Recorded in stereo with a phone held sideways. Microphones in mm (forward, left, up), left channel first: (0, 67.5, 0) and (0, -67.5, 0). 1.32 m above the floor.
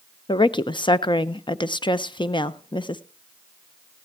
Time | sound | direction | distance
0.3 | a woman speaking | 35° left (ahead or behind) | 0.6 m